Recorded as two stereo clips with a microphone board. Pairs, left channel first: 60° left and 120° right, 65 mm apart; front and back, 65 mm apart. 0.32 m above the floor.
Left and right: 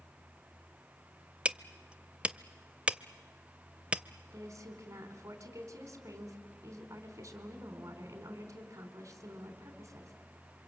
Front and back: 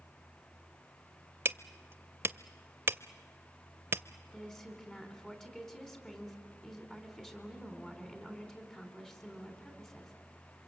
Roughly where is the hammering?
Behind.